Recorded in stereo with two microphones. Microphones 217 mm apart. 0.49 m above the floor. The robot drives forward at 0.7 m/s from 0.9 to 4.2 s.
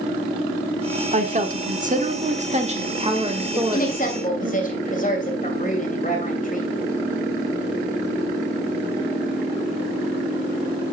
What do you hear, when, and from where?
1.1 s a woman speaking: 35° right (ahead or behind), 1.2 m; by 4.5 s 20° right (ahead or behind), 2 m
3.5 s a woman speaking: 45° left (ahead or behind), 2.5 m; by 6.7 s 35° left (ahead or behind), 2.5 m